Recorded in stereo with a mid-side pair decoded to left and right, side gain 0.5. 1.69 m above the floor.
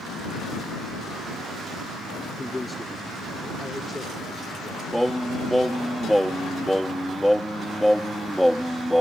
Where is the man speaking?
15° left; by 4.8 s 10° left.